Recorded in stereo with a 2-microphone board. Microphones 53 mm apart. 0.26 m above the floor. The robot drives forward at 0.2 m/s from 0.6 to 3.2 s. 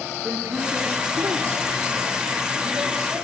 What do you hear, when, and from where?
0.2 s a man speaking: 55° right (ahead or behind), 3.5 m; by 3.2 s 45° right (ahead or behind), 4 m